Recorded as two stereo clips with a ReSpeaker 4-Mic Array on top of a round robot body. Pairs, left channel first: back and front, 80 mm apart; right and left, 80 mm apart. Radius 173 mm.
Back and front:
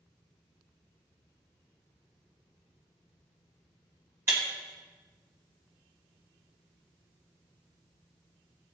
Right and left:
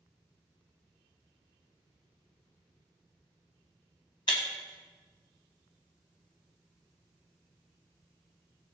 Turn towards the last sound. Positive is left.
turn(degrees=-60)